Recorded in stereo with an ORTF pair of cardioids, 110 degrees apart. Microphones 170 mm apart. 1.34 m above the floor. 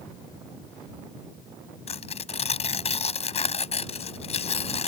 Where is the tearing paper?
40° left.